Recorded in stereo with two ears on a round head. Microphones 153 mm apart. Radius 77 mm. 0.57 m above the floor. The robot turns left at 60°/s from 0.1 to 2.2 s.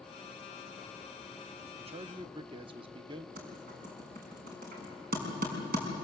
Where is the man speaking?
35° right (ahead or behind), 0.8 m; by 3.3 s 30° right (ahead or behind), 0.8 m.